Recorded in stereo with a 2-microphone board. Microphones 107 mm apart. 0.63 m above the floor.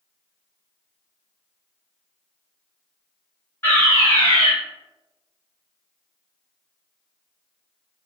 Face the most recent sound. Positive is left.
turn(degrees=20)  # may be behind; listen again after turning